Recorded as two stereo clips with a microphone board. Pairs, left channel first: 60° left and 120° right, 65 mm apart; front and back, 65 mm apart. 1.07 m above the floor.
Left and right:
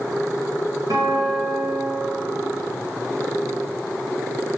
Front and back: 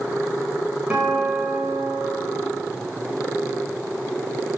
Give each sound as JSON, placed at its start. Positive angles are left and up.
{"t": 0.9, "sound": "a guitar", "azimuth_deg": -110, "distance_m": 5.5}